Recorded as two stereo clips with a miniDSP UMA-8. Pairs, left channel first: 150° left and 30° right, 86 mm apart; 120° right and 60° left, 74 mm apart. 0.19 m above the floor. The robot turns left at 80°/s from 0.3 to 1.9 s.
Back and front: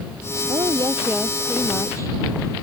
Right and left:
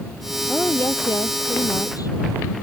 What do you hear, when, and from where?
0.5 s a woman speaking: 40° right; by 2.2 s 155° right